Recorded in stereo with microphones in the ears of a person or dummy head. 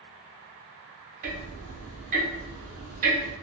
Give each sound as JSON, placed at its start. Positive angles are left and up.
{"t": 1.2, "sound": "ticking", "side_deg": -40, "distance_m": 0.7}